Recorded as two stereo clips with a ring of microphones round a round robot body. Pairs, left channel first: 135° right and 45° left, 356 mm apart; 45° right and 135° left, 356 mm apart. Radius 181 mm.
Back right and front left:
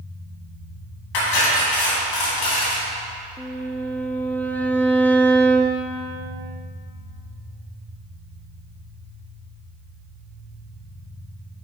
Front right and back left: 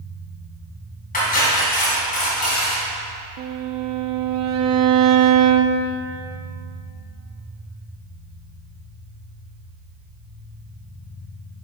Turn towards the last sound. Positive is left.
turn(degrees=140)